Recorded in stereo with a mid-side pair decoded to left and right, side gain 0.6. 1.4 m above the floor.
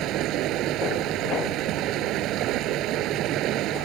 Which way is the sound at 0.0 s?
60° right.